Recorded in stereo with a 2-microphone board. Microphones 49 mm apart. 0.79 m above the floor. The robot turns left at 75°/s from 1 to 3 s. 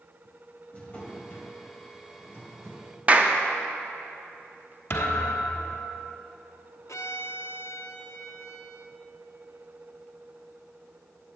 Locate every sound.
0.7 s a drawer: 155° left, 1.9 m; by 2.9 s 10° left, 1.9 m
3.1 s a clap: 30° right (ahead or behind), 0.7 m
4.9 s a thud: 50° left (ahead or behind), 1.2 m
6.9 s a violin: 80° left, 0.8 m